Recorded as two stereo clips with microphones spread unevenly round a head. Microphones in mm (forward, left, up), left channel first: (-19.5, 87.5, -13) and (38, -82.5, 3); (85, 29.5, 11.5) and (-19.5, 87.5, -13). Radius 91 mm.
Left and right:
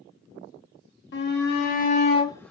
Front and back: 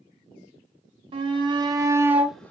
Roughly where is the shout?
Behind left.